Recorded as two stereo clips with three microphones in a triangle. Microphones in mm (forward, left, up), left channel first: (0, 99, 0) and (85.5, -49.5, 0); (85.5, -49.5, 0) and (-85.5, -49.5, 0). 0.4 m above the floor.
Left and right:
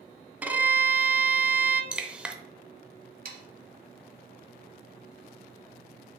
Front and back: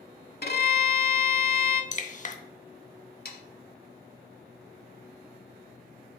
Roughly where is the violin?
Ahead.